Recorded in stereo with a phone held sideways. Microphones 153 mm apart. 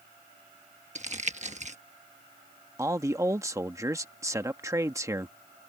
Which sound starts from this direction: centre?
A man speaking, at 2.8 s.